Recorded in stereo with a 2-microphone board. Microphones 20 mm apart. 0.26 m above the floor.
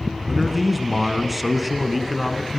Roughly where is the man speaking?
Centre.